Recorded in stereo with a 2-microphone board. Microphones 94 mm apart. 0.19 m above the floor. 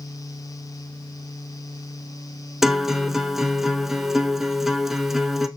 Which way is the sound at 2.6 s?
5° right (ahead or behind).